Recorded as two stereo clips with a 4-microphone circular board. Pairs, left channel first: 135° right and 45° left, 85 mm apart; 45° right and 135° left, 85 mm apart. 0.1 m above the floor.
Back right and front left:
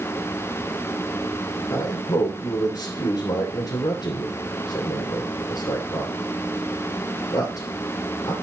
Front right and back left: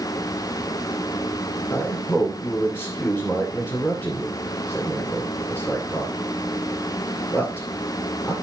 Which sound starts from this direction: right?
A man speaking, at 1.7 s.